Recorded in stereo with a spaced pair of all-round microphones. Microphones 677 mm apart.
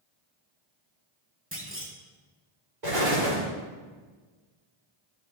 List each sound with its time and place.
1.5 s a clunk: 20° right (ahead or behind), 1.3 m
2.8 s an explosion: 75° right (ahead or behind), 3.5 m